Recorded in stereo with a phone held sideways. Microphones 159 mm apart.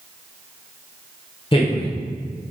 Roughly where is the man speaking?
Left.